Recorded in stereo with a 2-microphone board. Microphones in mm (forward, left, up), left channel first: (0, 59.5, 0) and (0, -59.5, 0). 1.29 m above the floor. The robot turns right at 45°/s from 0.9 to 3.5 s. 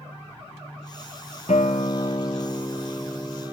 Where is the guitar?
105° left, 1.6 m; by 3.5 s 165° right, 1.6 m.